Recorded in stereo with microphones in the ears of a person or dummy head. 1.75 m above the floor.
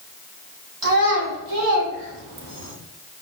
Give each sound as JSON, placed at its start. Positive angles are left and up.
{"t": 0.8, "sound": "a child speaking", "side_deg": -55, "distance_m": 2.0}